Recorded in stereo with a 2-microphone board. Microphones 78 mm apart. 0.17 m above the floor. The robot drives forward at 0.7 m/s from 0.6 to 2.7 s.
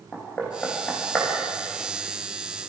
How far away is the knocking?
About 7 m.